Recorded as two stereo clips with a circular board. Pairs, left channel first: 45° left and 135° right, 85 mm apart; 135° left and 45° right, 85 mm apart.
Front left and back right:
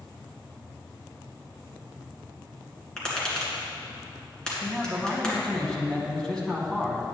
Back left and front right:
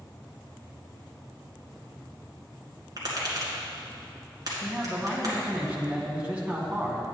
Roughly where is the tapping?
Ahead right.